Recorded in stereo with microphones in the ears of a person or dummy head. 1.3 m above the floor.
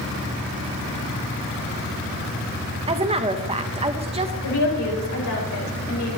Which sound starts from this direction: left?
A woman speaking, at 4.4 s.